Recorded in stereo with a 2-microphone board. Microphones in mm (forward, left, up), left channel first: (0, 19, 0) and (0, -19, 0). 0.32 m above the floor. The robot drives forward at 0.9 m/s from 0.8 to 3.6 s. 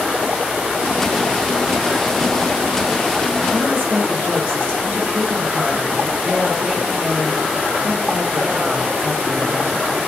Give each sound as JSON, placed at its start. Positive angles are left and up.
{"t": 3.5, "sound": "a woman speaking", "side_deg": -50, "distance_m": 3.5}